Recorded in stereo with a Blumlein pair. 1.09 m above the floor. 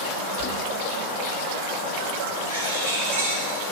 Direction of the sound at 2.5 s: 65° right.